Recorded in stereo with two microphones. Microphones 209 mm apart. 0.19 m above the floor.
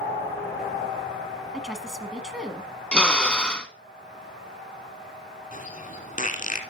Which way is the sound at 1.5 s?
Centre (ahead or behind).